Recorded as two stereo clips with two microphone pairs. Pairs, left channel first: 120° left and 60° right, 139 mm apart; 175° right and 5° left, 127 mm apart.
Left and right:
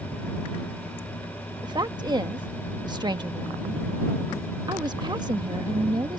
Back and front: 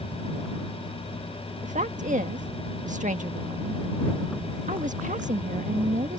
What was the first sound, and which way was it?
A woman speaking, straight ahead.